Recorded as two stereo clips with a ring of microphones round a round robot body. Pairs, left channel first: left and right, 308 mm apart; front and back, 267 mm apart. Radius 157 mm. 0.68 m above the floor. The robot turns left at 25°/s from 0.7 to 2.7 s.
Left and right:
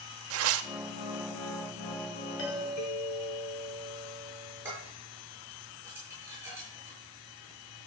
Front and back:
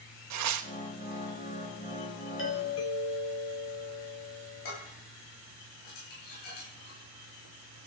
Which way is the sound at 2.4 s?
40° left.